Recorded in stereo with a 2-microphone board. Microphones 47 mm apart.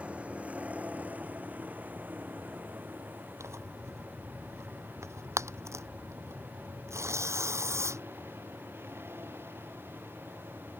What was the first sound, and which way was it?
A vehicle, 25° right (ahead or behind).